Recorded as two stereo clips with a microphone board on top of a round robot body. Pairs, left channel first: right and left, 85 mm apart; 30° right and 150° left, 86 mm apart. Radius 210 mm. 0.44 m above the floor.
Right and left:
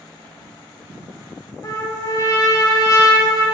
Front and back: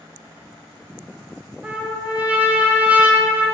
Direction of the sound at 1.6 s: 135° right.